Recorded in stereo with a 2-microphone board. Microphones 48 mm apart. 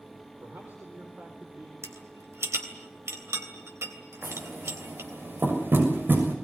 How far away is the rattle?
About 3 m.